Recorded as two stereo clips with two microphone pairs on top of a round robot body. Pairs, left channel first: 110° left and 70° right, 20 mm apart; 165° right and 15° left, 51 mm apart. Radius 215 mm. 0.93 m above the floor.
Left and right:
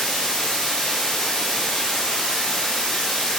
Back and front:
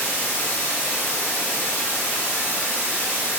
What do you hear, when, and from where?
0.0 s running water: 80° left, 0.9 m